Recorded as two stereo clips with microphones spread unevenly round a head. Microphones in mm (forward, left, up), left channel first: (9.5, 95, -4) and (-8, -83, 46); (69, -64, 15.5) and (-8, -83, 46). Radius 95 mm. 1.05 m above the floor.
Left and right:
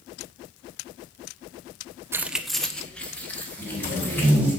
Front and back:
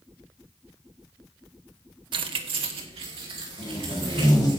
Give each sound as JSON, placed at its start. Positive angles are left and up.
{"t": 2.1, "sound": "keys jangling", "azimuth_deg": -170, "distance_m": 0.5}
{"t": 3.6, "sound": "tape being pulled", "azimuth_deg": -15, "distance_m": 4.5}